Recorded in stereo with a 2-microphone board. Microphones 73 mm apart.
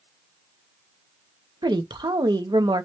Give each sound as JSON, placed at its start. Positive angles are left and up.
{"t": 1.6, "sound": "a woman speaking", "side_deg": -80, "distance_m": 1.0}